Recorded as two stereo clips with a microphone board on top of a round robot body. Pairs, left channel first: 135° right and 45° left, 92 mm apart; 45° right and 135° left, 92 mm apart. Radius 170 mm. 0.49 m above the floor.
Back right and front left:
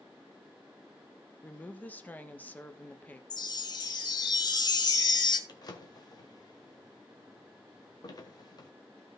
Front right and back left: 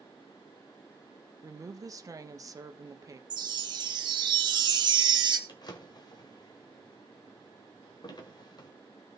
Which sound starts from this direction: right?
A drawer, at 5.5 s.